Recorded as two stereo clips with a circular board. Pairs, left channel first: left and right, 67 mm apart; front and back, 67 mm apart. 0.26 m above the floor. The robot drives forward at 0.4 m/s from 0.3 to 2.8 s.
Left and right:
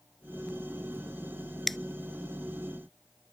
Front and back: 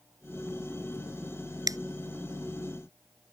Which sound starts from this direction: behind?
A finger snap, at 1.7 s.